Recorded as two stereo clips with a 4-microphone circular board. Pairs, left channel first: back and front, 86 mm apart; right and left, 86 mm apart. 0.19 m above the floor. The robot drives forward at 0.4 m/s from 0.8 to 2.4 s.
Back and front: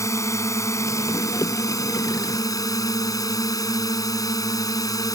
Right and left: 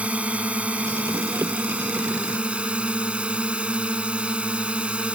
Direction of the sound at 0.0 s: 155° left.